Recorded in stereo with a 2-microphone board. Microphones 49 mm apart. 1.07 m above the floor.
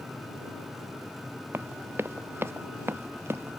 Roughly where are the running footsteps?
Right.